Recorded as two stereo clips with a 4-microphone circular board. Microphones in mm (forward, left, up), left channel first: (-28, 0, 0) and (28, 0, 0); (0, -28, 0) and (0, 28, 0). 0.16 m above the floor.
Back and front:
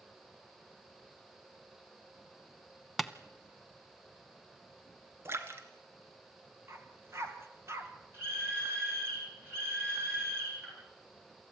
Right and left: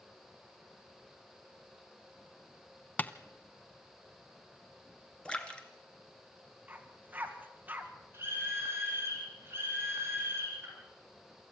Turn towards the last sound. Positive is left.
turn(degrees=40)